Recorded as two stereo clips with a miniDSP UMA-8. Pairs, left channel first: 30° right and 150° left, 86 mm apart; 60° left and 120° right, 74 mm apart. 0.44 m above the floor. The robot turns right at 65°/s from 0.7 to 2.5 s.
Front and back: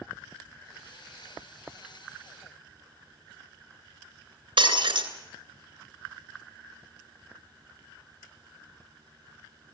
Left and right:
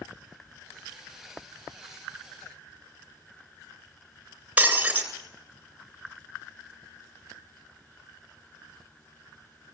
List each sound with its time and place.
4.6 s breaking glass: 170° left, 3 m